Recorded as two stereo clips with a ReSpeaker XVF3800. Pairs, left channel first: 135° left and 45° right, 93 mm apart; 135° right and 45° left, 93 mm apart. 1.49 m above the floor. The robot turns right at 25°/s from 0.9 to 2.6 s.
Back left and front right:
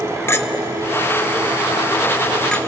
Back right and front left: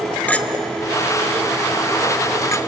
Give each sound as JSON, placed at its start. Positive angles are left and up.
{"t": 0.3, "sound": "a clink", "azimuth_deg": 165, "distance_m": 0.8}